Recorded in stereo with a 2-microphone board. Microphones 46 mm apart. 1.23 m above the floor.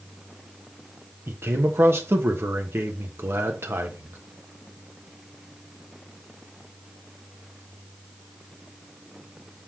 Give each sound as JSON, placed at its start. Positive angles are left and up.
{"t": 1.3, "sound": "a man speaking", "side_deg": -60, "distance_m": 1.2}